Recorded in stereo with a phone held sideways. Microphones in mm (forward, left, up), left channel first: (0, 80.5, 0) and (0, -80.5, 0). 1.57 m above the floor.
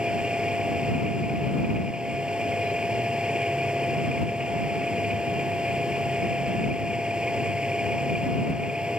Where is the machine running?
5° right (ahead or behind).